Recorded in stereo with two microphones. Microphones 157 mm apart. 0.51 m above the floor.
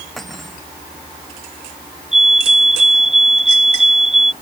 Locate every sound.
0.2 s cutlery clinking: centre (ahead or behind)
2.1 s a fire alarm: 45° right (ahead or behind)